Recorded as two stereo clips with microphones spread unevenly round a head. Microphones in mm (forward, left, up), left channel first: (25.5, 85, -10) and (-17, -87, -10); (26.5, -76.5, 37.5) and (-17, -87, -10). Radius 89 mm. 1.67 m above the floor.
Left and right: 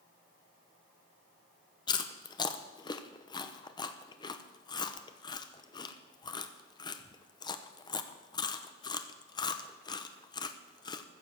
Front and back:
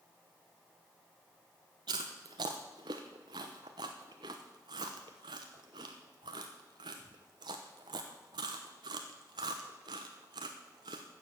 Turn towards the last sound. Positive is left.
turn(degrees=140)